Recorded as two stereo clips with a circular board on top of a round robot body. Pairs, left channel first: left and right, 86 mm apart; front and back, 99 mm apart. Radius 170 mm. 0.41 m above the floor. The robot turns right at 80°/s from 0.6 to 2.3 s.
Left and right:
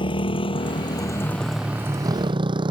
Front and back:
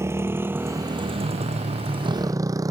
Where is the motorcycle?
115° left; by 2.7 s 125° right.